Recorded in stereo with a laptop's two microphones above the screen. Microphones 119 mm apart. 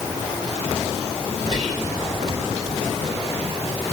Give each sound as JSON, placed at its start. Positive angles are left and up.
{"t": 1.5, "sound": "whispering", "side_deg": -65, "distance_m": 1.7}